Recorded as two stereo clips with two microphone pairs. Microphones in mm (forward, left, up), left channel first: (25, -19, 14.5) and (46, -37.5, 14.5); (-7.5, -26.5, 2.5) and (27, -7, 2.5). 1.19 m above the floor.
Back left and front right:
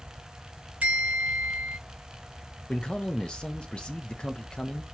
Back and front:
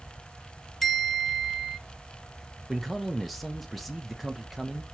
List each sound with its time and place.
0.8 s a bell: 70° right, 1.9 m
2.7 s a man speaking: 120° left, 0.7 m